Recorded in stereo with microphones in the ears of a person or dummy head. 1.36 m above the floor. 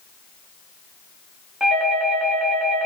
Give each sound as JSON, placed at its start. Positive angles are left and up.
{"t": 1.6, "sound": "a doorbell", "side_deg": 0, "distance_m": 0.7}